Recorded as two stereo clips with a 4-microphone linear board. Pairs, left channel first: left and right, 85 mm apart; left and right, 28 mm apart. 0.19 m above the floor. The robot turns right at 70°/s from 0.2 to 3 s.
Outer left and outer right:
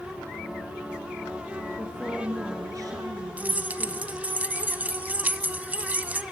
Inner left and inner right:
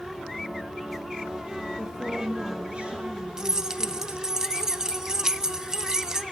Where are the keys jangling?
20° right (ahead or behind), 0.7 m.